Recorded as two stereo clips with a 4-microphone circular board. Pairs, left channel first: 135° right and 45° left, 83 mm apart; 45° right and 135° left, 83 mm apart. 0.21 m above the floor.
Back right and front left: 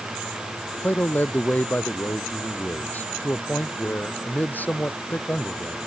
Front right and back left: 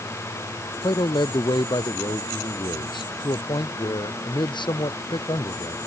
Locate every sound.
0.8 s a man speaking: 65° right